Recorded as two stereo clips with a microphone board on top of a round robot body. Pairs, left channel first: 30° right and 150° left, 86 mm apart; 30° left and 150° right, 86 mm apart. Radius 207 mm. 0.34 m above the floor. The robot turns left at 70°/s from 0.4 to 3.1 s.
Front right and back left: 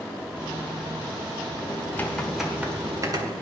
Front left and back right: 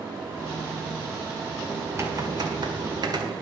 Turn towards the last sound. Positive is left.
turn(degrees=-175)